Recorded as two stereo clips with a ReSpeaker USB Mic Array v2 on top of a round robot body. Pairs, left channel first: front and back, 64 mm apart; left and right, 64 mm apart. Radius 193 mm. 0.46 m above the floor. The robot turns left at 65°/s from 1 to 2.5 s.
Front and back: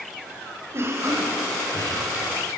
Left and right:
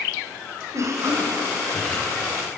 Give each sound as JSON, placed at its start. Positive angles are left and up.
{"t": 0.7, "sound": "a cough", "azimuth_deg": -130, "distance_m": 3.5}